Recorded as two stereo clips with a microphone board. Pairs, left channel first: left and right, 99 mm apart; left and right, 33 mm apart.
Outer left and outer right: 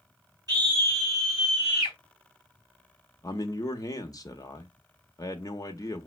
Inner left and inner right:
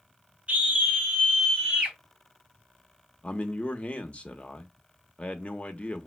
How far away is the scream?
About 2 m.